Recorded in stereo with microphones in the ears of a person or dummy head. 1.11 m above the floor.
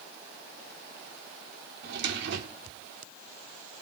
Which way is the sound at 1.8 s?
65° right (ahead or behind).